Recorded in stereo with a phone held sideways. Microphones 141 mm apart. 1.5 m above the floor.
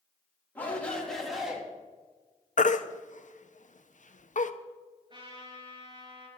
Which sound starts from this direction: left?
A baby crying, at 2.6 s.